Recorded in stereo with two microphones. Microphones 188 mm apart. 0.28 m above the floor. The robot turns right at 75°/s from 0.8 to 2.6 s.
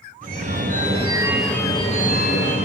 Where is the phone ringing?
50° right, 3 m; by 2.6 s 85° left, 3 m.